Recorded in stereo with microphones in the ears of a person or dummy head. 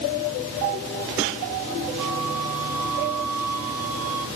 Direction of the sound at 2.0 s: 85° right.